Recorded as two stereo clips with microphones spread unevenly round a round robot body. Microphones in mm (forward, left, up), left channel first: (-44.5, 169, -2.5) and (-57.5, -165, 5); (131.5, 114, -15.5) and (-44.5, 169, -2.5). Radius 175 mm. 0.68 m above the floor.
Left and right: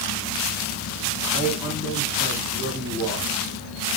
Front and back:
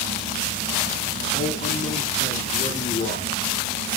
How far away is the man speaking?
About 1.8 m.